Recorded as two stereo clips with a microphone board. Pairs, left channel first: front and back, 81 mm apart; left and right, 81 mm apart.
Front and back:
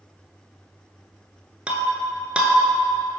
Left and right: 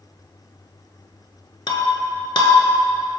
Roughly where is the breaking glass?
Left.